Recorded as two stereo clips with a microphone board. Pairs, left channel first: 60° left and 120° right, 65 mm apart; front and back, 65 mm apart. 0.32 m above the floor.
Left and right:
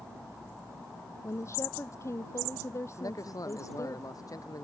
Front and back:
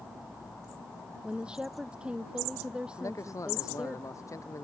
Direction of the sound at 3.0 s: 35° left.